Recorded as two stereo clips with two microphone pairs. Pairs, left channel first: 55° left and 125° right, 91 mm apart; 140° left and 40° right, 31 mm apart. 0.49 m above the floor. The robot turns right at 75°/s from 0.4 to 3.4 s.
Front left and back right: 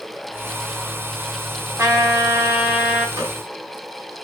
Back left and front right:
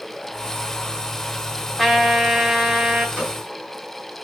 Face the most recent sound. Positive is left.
turn(degrees=-70)